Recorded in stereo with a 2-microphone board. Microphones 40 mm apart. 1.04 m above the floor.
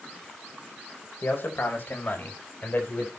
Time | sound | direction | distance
1.2 | a man speaking | 70° left (ahead or behind) | 4 m